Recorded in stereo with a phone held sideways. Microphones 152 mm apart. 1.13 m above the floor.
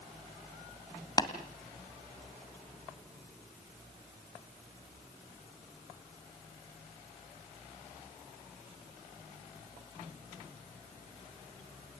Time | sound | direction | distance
1.2 | tapping | 25° left (ahead or behind) | 1.8 m